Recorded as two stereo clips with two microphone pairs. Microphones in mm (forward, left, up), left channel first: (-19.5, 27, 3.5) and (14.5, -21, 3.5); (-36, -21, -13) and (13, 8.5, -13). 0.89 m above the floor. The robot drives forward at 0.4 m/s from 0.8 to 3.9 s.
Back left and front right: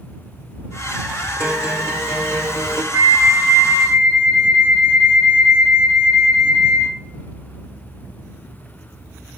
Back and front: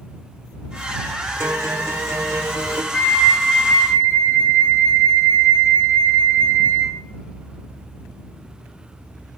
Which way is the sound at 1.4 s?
5° right.